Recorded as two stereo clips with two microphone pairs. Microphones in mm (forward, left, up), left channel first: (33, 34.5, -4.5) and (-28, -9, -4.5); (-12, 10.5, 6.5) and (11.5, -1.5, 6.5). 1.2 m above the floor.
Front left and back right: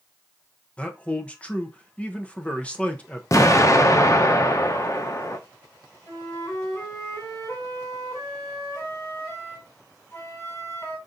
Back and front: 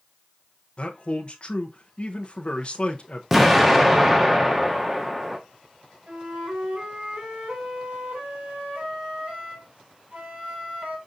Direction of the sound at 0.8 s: 110° left.